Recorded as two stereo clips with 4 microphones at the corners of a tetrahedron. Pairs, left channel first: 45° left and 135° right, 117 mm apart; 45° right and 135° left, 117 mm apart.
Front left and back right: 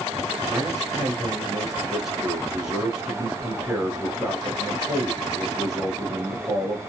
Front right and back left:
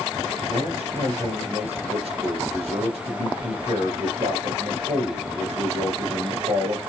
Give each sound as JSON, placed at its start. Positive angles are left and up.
{"t": 0.5, "sound": "a man speaking", "azimuth_deg": 140, "distance_m": 2.5}